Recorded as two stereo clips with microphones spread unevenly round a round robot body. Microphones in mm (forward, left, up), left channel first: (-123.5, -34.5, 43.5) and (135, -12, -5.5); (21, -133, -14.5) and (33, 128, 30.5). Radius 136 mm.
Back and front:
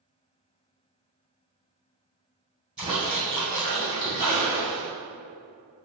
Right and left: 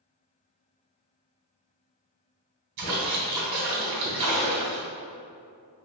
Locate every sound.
2.8 s a splash: 90° left, 1.8 m